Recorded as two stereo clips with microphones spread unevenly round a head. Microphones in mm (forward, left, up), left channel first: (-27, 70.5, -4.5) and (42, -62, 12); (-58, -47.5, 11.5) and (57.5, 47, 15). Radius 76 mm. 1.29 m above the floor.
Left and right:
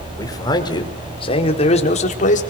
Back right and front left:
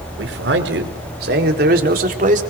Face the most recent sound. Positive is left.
turn(degrees=80)